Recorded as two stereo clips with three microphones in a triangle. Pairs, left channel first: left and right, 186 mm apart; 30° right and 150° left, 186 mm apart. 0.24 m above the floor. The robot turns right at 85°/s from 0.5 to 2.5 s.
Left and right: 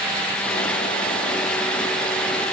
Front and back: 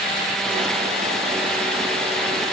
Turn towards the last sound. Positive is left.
No sound to turn to.